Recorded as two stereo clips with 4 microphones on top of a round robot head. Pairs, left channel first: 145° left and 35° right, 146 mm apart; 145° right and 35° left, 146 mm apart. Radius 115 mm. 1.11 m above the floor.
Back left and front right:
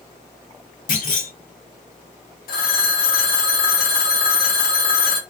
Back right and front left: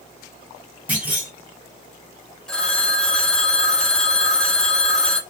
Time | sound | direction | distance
0.9 | a clunk | 110° left | 1.5 m
2.5 | a phone ringing | 130° left | 1.4 m